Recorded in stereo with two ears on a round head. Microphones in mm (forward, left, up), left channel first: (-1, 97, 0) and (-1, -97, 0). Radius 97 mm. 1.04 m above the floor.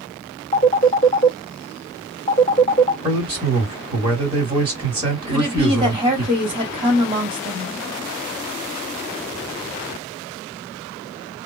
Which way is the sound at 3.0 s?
25° right (ahead or behind).